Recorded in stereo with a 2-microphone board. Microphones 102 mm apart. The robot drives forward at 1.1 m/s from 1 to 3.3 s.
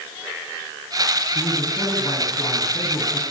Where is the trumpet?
I don't hear a trumpet.